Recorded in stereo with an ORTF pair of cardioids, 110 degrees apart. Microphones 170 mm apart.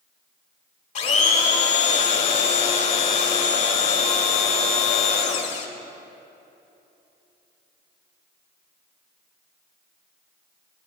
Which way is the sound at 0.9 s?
45° left.